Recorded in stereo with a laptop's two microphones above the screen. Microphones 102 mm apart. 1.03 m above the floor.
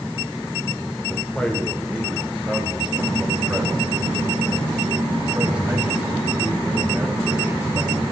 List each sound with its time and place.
1.1 s a man speaking: 15° left (ahead or behind), 3 m; by 8.0 s 15° right (ahead or behind), 9.5 m